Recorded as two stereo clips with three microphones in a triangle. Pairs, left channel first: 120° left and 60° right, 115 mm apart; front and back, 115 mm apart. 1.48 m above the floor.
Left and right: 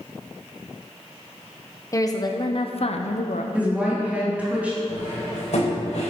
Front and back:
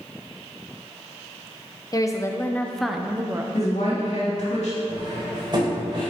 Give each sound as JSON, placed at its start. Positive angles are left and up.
{"t": 1.9, "sound": "a woman speaking", "azimuth_deg": 55, "distance_m": 1.0}
{"t": 3.5, "sound": "a woman speaking", "azimuth_deg": 15, "distance_m": 3.0}
{"t": 4.9, "sound": "cutlery clinking", "azimuth_deg": 130, "distance_m": 3.5}